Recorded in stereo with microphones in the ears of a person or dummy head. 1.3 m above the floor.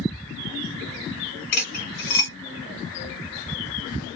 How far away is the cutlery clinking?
About 1.8 m.